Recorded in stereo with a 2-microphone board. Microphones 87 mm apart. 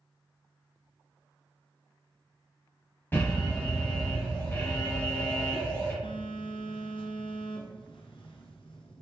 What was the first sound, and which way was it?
An alarm, 25° left (ahead or behind).